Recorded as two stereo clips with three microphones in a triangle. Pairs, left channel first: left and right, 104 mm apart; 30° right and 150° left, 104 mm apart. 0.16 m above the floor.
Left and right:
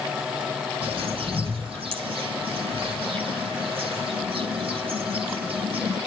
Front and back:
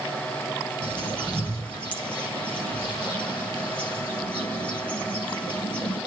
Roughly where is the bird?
Right.